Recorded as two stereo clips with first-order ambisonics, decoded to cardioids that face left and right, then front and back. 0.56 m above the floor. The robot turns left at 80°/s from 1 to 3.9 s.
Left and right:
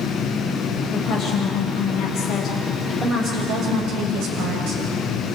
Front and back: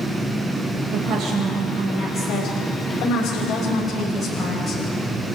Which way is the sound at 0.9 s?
140° left.